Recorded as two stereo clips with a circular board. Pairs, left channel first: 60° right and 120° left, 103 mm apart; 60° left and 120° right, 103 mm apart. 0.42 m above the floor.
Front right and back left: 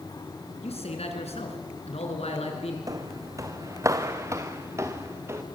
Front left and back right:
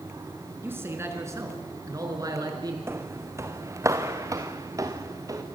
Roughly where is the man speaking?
Ahead right.